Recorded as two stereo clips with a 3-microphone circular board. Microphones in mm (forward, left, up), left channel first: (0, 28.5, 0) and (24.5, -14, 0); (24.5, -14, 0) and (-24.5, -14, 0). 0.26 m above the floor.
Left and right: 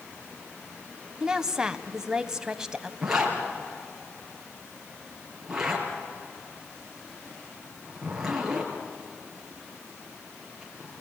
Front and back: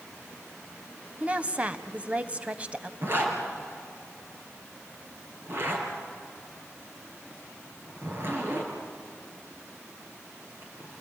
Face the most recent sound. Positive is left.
turn(degrees=-140)